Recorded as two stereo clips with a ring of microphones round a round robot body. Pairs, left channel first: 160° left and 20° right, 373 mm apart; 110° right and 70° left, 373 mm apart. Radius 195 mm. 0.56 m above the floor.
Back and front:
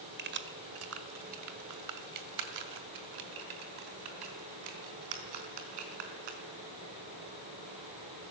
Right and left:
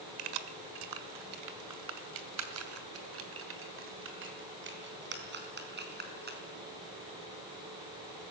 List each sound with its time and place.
0.2 s keys jangling: 40° left, 1.5 m; by 6.4 s straight ahead, 4.5 m